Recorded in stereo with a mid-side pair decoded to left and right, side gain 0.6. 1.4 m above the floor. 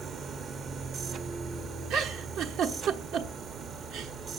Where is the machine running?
45° right, 0.8 m.